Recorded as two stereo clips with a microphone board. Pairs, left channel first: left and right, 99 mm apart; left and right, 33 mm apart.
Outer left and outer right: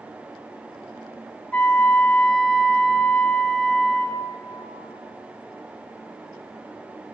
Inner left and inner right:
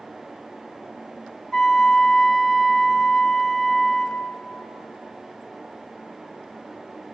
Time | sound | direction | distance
1.5 | a flute | 15° left (ahead or behind) | 1.5 m